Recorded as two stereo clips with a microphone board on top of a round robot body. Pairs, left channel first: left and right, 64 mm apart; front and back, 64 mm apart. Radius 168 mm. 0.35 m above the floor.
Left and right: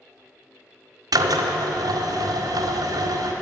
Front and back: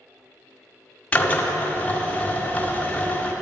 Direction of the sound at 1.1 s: 70° right.